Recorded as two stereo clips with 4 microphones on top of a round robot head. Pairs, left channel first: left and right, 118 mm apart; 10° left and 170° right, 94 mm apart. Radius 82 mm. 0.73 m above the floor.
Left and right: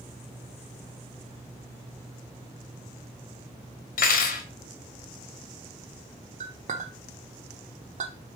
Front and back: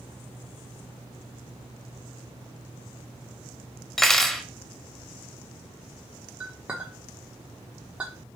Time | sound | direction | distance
4.0 | cutlery clinking | 95° left | 0.7 m
6.4 | a clink | 90° right | 0.9 m